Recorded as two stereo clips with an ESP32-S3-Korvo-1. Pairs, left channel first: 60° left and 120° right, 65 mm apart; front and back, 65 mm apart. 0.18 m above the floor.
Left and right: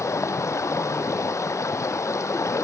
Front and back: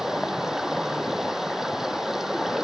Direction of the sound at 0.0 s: 100° left.